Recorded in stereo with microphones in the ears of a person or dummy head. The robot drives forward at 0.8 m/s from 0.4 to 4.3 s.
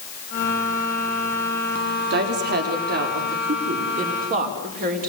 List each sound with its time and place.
2.1 s a woman speaking: 55° right (ahead or behind), 4 m; by 5.1 s 40° right (ahead or behind), 5.5 m